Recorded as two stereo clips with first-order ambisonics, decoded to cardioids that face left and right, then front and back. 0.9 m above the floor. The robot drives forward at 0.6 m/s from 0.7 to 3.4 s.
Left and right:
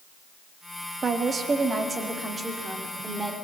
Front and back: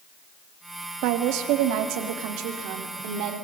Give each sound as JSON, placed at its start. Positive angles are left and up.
{"t": 1.0, "sound": "a woman speaking", "azimuth_deg": -160, "distance_m": 1.6}